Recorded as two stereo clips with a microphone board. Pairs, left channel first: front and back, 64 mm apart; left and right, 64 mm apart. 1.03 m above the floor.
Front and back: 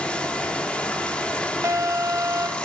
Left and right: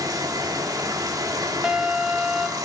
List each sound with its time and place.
0.0 s running water: 70° right, 1.9 m
1.6 s an alarm: 165° right, 1.2 m